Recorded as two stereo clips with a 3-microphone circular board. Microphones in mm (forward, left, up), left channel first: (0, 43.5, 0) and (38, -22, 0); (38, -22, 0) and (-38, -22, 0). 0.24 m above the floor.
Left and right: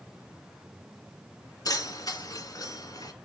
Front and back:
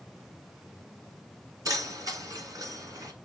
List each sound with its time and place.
1.6 s keys jangling: 150° left, 1.5 m